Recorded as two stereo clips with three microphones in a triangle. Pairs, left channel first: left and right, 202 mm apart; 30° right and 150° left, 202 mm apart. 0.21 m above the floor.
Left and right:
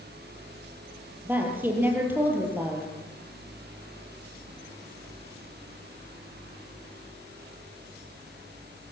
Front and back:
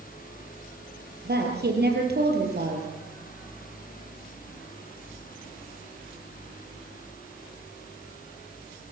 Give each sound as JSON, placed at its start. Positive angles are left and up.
{"t": 1.2, "sound": "a woman speaking", "azimuth_deg": -170, "distance_m": 5.5}